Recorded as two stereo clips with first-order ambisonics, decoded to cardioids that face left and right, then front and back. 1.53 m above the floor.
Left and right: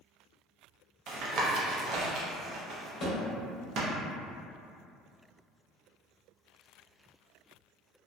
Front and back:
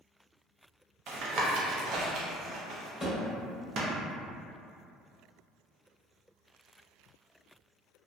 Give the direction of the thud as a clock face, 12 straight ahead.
9 o'clock.